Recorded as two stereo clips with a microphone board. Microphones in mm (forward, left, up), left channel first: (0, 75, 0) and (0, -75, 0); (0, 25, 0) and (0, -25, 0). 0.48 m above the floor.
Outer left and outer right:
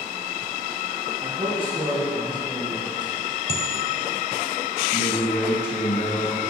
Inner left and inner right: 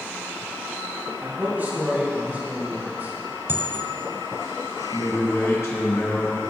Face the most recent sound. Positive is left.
turn(degrees=80)